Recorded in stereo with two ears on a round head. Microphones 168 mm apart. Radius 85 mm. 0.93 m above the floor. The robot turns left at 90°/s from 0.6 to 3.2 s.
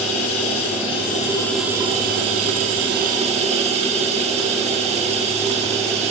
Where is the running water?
90° left, 1.2 m; by 6.1 s 145° right, 1.2 m.